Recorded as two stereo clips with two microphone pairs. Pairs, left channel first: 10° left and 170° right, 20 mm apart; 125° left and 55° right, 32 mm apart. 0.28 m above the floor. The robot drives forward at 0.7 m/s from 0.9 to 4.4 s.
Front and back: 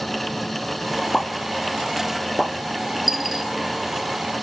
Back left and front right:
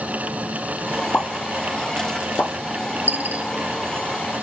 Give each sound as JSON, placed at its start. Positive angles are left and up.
{"t": 1.1, "sound": "a pop", "azimuth_deg": 100, "distance_m": 1.4}
{"t": 3.1, "sound": "a dropped coin", "azimuth_deg": -75, "distance_m": 2.0}